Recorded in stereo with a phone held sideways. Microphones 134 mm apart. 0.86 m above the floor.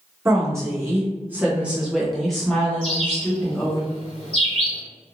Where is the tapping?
No tapping in this recording.